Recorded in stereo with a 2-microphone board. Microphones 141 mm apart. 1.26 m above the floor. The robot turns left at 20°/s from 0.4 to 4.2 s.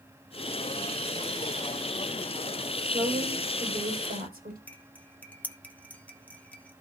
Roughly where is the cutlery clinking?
Centre.